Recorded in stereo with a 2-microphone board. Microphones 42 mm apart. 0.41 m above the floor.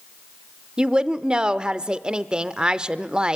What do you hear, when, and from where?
0.8 s a woman speaking: 20° right (ahead or behind), 0.8 m